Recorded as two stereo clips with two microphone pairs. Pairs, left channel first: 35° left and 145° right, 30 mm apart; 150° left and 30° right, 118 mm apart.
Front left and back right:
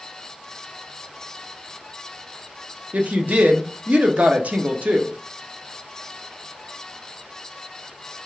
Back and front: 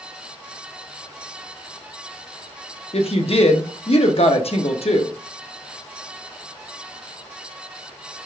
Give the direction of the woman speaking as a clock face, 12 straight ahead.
6 o'clock.